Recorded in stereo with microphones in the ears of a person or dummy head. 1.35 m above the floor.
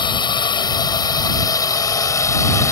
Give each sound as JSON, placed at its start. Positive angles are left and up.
{"t": 0.0, "sound": "a drone", "side_deg": 20}